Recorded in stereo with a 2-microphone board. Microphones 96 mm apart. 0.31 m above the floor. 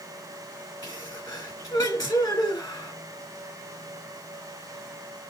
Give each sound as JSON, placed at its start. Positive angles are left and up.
{"t": 0.8, "sound": "a sneeze", "side_deg": 40, "distance_m": 3.0}